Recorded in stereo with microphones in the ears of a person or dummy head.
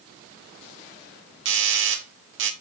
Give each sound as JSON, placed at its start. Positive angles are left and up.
{"t": 1.4, "sound": "a doorbell", "side_deg": -55, "distance_m": 1.5}